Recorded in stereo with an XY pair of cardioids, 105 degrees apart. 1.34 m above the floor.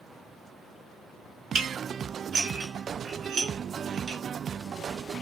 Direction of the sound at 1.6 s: 70° right.